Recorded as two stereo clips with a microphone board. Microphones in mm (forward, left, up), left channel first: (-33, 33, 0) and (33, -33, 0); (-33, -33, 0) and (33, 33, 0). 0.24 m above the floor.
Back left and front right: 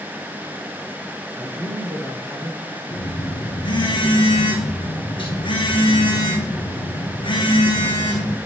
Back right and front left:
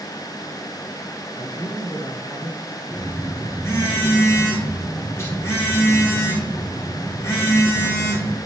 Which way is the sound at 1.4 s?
105° right.